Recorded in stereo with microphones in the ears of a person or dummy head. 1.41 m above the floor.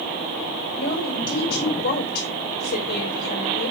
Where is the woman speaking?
55° left (ahead or behind), 5.5 m.